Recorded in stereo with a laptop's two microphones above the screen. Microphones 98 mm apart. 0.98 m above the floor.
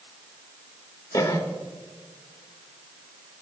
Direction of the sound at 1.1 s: 40° left (ahead or behind).